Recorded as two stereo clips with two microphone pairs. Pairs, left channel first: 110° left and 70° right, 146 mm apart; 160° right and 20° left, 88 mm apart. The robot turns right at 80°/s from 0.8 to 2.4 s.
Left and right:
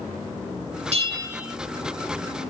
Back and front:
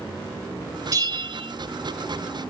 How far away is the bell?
About 2.5 m.